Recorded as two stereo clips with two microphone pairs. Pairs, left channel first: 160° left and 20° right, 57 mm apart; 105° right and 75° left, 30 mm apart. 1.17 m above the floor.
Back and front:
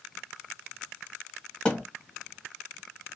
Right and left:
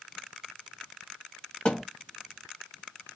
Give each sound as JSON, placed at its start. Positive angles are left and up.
{"t": 1.6, "sound": "a thud", "azimuth_deg": -135, "distance_m": 1.4}